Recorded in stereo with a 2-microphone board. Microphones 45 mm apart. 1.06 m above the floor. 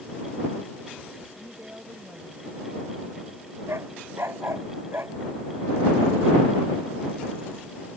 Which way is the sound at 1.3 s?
55° right (ahead or behind).